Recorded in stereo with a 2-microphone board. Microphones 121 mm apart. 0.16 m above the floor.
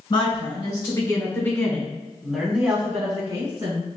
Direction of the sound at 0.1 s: 45° left (ahead or behind).